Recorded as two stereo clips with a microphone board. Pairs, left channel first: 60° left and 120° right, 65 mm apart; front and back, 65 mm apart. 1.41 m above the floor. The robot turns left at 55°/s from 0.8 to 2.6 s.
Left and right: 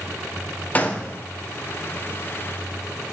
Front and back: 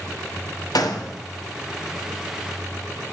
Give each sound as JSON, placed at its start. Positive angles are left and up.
{"t": 0.8, "sound": "a gunshot", "azimuth_deg": -5, "distance_m": 0.9}